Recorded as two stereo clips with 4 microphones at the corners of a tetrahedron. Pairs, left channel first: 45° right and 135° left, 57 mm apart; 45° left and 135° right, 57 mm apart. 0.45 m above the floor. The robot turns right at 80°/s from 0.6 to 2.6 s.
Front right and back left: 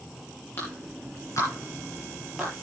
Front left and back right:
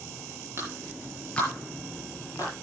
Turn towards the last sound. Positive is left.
turn(degrees=65)